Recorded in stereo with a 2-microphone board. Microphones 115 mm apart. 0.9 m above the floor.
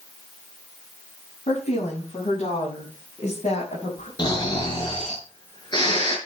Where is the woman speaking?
70° left (ahead or behind), 6.5 m; by 4.1 s 80° left, 5 m.